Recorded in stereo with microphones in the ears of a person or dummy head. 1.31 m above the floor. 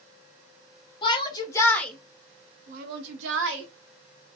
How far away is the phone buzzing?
No phone buzzing in this recording.